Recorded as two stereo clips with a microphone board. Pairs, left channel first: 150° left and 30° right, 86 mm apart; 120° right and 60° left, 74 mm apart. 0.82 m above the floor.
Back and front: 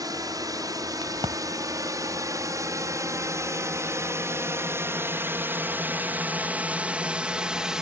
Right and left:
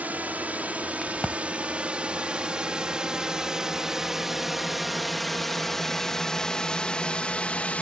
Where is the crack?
35° right.